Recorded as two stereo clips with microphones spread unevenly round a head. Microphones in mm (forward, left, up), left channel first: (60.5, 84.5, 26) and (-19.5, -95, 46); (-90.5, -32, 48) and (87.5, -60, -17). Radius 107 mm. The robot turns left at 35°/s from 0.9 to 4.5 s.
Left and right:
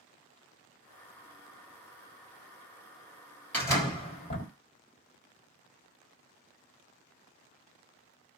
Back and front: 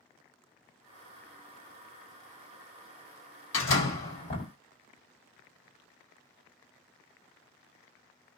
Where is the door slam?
150° left, 1.6 m; by 4.5 s 115° left, 1.6 m.